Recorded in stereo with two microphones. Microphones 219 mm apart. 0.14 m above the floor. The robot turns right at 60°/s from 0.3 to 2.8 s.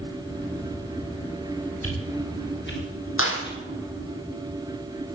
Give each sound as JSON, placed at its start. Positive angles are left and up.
{"t": 1.8, "sound": "a whoosh", "side_deg": 75, "distance_m": 7.5}
{"t": 3.2, "sound": "a clap", "side_deg": 65, "distance_m": 4.0}